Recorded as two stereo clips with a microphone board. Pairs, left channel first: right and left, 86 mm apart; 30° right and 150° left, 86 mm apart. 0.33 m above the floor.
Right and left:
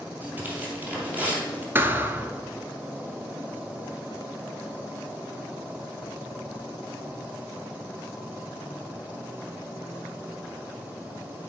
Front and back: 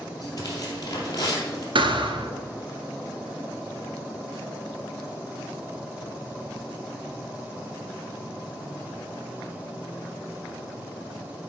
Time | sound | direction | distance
0.2 | tearing paper | 20° left | 2.5 m
1.8 | a thud | 155° left | 0.7 m